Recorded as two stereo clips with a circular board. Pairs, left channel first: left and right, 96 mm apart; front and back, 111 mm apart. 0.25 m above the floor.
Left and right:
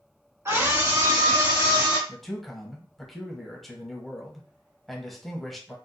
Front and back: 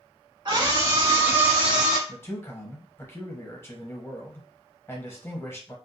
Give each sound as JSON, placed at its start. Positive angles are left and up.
{"t": 0.5, "sound": "a scream", "azimuth_deg": -140, "distance_m": 2.0}
{"t": 2.1, "sound": "a man speaking", "azimuth_deg": 5, "distance_m": 1.0}